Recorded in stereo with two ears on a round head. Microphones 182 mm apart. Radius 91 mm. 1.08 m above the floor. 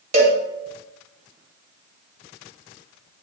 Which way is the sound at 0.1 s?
35° right (ahead or behind).